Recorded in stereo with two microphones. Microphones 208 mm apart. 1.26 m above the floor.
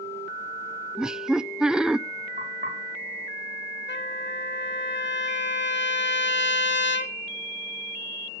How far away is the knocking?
About 5.5 m.